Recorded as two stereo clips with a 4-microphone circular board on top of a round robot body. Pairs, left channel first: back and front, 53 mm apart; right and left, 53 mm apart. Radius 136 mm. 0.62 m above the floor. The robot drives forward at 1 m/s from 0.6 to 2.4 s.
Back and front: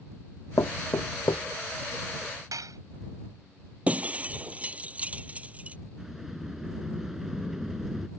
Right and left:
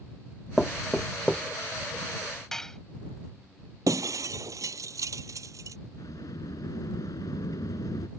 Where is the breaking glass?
65° left.